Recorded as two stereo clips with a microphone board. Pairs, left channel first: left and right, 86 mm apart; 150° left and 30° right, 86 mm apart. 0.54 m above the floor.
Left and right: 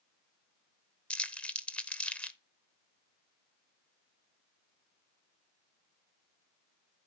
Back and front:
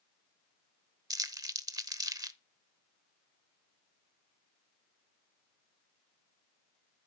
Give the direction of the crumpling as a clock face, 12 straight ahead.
12 o'clock.